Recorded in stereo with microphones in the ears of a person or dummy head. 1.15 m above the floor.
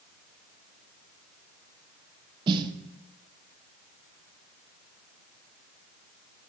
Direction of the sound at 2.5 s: 30° right (ahead or behind).